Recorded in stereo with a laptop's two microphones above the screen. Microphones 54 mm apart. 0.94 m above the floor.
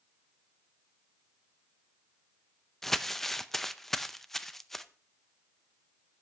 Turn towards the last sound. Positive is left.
turn(degrees=5)  # may be behind; listen again after turning